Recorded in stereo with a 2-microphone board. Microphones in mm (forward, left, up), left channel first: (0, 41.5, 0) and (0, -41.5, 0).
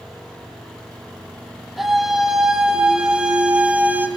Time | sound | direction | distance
1.8 | a scream | centre (ahead or behind) | 5.5 m